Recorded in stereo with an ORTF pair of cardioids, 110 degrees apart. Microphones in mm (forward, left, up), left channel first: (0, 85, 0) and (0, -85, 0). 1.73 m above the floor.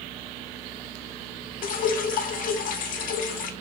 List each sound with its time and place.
1.6 s dripping: 60° left, 1.1 m